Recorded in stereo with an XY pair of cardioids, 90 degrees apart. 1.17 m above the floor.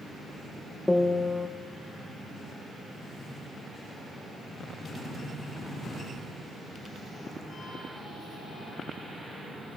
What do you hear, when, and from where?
0.9 s a piano: 15° left, 0.9 m